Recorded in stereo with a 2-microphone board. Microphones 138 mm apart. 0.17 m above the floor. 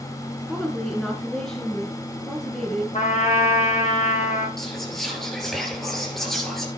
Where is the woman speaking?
5° left (ahead or behind), 1.9 m.